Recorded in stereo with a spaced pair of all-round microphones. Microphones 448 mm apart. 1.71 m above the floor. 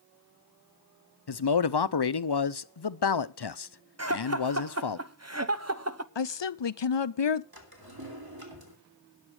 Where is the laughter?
35° right (ahead or behind), 1.1 m.